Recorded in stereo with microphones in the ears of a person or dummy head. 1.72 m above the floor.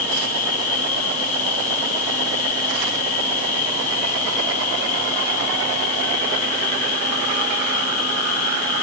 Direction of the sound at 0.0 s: 45° left (ahead or behind).